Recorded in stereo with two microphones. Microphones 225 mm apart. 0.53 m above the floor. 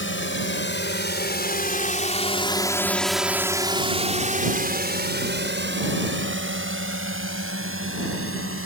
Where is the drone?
60° left (ahead or behind); by 8.7 s 70° right (ahead or behind).